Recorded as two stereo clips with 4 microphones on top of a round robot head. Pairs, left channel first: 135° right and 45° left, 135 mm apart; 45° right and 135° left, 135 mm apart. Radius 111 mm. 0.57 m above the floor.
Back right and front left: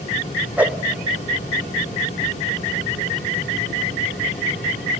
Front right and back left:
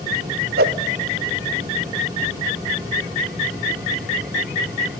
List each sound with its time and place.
0.6 s a whoosh: 125° left, 0.5 m